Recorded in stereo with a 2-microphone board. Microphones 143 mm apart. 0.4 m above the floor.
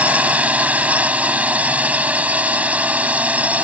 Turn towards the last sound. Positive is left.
turn(degrees=-10)  # may be behind; listen again after turning